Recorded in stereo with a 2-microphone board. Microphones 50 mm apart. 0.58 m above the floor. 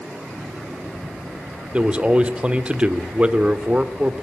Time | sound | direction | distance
1.7 | a man speaking | 25° right (ahead or behind) | 1.4 m